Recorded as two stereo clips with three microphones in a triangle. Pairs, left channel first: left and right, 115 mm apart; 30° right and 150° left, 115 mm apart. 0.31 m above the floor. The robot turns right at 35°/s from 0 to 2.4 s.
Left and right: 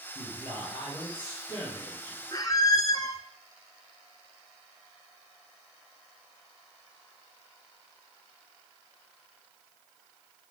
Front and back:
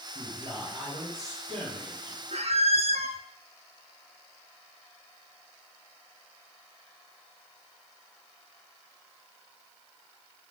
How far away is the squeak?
About 0.7 m.